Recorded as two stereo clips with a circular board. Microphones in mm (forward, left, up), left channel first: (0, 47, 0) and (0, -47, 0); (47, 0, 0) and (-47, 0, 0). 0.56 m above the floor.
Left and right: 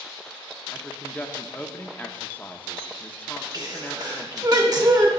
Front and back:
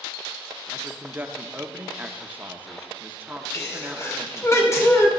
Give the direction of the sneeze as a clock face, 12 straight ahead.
2 o'clock.